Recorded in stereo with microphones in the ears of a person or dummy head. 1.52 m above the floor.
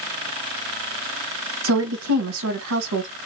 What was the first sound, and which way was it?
A woman speaking, 80° right.